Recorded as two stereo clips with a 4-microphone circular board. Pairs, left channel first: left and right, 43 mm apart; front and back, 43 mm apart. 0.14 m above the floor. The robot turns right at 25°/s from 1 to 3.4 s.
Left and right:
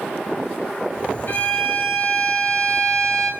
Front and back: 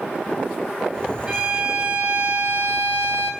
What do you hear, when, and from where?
1.3 s a violin: 110° left, 1.8 m; by 3.3 s 160° left, 1.8 m